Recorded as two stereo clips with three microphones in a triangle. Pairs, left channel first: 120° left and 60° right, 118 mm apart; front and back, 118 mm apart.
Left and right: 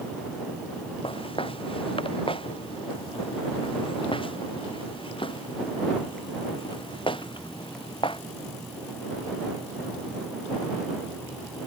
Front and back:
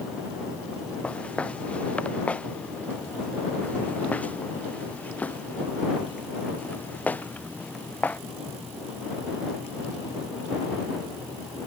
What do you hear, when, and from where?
1.0 s footsteps: 80° left; by 8.2 s 75° left